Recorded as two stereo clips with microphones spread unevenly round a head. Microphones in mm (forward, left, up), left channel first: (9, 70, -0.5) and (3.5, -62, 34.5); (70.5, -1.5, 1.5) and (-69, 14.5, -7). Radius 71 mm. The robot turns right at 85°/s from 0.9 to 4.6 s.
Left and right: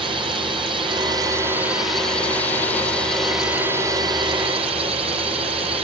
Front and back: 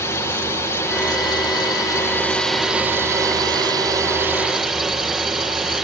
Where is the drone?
55° right; by 5.8 s 100° right.